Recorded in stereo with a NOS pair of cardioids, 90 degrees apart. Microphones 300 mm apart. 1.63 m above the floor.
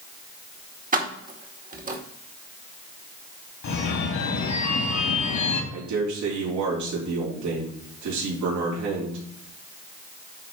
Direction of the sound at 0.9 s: 25° right.